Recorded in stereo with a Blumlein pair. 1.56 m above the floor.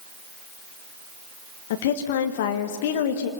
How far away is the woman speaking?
About 1.5 m.